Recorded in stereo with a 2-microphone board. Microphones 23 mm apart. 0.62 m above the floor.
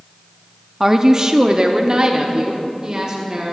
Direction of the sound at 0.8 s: 20° right (ahead or behind).